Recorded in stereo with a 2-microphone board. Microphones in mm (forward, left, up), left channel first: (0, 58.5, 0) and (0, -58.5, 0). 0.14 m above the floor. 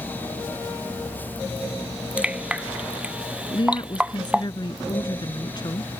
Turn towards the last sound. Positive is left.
turn(degrees=40)  # may be behind; listen again after turning